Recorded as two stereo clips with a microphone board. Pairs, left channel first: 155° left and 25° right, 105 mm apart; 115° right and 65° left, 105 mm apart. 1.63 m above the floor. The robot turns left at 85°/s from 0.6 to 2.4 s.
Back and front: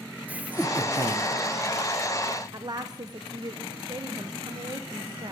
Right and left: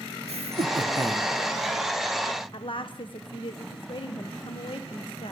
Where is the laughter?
55° left, 1.2 m; by 1.3 s 5° right, 1.2 m.